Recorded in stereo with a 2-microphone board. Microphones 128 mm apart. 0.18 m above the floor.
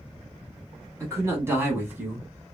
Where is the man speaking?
20° right (ahead or behind), 1.2 m; by 2.3 s 10° right (ahead or behind), 1.1 m.